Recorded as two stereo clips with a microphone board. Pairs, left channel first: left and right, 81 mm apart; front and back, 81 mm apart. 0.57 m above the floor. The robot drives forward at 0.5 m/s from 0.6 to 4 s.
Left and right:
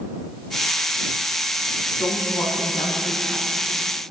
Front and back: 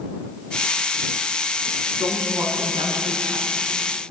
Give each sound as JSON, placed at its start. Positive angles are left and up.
{"t": 2.0, "sound": "a woman speaking", "azimuth_deg": 125, "distance_m": 4.5}